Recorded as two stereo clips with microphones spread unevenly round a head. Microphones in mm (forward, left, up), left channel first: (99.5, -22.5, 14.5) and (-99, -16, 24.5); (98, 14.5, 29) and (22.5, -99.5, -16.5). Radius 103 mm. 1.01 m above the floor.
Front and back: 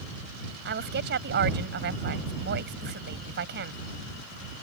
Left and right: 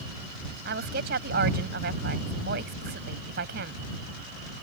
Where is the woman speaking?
145° right.